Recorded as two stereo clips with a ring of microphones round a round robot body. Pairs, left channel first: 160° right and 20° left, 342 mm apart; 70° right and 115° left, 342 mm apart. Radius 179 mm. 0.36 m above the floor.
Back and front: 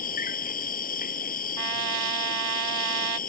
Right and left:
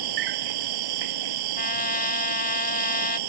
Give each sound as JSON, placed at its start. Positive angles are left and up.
{"t": 0.0, "sound": "an insect", "azimuth_deg": 135}
{"t": 1.6, "sound": "a trumpet", "azimuth_deg": -5}